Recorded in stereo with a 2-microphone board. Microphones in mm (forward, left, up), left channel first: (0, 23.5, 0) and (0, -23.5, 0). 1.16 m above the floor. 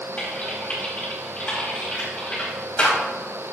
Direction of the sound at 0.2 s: 30° left (ahead or behind).